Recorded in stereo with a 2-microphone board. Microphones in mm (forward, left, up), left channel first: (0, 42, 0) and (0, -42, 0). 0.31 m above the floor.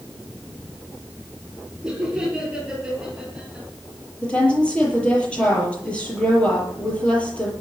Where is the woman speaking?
15° left (ahead or behind), 8 m.